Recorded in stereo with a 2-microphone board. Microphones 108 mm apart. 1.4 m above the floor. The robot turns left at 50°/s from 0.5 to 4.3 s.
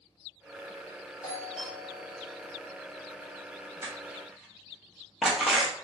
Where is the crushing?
25° right (ahead or behind), 0.7 m; by 5.8 s 5° right (ahead or behind), 0.7 m.